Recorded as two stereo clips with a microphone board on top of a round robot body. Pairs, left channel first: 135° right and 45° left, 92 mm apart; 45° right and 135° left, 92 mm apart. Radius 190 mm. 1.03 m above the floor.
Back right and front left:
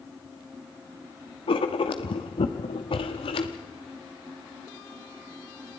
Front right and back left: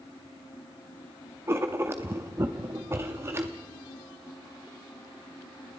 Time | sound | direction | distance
1.5 | writing | 160° right | 0.8 m